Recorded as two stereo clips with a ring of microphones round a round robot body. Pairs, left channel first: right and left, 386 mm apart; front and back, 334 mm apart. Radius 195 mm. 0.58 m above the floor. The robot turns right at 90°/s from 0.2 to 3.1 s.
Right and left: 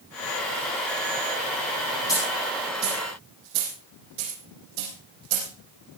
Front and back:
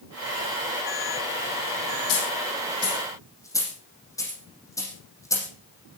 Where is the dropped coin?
10° right, 8.5 m; by 5.5 s 80° left, 8.5 m.